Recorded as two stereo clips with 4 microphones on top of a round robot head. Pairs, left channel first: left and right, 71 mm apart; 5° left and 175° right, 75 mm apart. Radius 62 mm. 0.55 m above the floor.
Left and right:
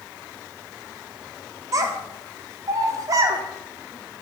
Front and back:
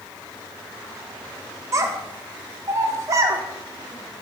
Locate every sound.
1.7 s a child speaking: 130° right, 0.5 m